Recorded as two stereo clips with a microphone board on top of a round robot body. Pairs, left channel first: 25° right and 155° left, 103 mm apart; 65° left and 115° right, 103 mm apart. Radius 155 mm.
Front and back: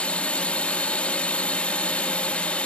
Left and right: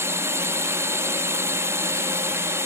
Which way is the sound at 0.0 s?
85° right.